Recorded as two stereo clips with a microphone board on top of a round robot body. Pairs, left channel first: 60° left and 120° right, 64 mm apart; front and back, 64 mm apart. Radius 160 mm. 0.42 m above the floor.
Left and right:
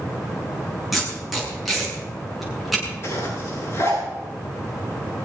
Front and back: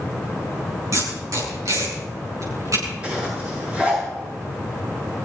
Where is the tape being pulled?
155° left, 7 m.